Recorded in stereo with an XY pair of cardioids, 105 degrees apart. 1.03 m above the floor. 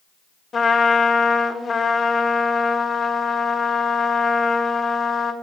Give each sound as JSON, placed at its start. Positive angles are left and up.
{"t": 0.5, "sound": "a trumpet", "azimuth_deg": 45, "distance_m": 1.3}